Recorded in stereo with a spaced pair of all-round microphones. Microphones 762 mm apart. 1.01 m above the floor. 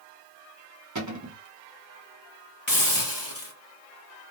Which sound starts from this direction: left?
A hiss, at 2.7 s.